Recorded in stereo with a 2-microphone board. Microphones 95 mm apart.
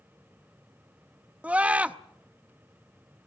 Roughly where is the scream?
Centre.